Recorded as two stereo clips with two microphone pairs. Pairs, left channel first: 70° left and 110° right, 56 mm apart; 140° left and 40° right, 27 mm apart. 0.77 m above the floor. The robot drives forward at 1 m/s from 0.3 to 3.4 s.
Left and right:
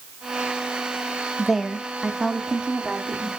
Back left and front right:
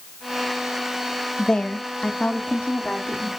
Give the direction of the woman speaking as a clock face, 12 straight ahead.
7 o'clock.